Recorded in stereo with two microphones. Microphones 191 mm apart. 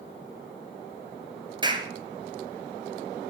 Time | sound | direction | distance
1.6 | a clap | 25° right (ahead or behind) | 2.0 m